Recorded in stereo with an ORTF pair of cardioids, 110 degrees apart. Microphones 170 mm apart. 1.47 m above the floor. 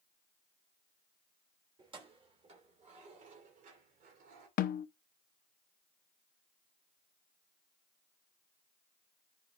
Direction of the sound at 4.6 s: 60° left.